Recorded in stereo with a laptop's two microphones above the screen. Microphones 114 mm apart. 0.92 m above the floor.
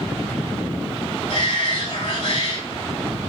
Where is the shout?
75° left (ahead or behind), 4 m.